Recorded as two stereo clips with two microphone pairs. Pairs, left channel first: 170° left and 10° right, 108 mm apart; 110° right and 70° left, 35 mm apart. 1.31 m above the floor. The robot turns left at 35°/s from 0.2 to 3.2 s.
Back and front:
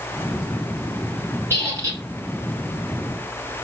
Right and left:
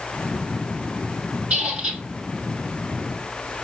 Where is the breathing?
No breathing in this recording.